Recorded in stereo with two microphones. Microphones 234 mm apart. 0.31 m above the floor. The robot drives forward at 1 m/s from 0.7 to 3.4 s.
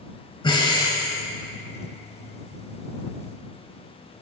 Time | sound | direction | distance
0.4 | breathing | 20° left (ahead or behind) | 0.9 m